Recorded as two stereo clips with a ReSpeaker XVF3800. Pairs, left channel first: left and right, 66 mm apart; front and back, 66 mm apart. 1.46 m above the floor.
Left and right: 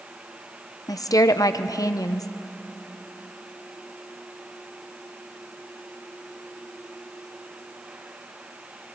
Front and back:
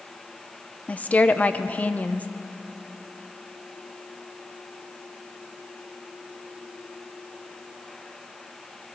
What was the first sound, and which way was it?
A woman speaking, 65° left.